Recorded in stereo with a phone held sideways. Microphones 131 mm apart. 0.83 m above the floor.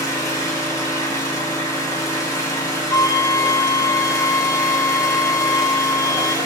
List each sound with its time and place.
0.0 s an engine running: 25° left (ahead or behind), 2.5 m
2.9 s a flute: 30° left (ahead or behind), 1.2 m